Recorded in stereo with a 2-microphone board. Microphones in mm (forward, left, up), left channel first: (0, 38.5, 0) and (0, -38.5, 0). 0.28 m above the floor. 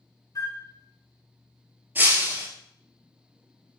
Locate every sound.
0.3 s a flute: 50° left (ahead or behind), 0.7 m
1.9 s breaking glass: 25° right (ahead or behind), 1.1 m